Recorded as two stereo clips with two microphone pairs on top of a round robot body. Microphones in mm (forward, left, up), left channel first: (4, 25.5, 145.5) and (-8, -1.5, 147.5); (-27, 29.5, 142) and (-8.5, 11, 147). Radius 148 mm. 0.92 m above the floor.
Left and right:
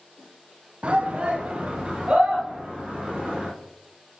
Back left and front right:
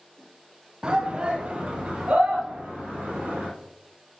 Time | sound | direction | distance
0.8 | a shout | 100° right | 1.0 m